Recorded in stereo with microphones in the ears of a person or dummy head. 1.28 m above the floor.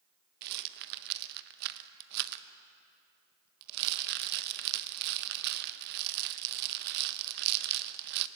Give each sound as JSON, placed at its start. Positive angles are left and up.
{"t": 0.4, "sound": "a rattle", "side_deg": -60, "distance_m": 0.9}